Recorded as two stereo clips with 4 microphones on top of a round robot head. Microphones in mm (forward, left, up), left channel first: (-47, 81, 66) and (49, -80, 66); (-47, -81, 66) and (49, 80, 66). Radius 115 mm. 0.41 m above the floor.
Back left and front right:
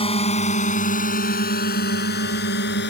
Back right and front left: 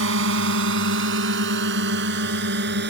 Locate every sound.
0.0 s a drone: 60° left; by 2.9 s 90° left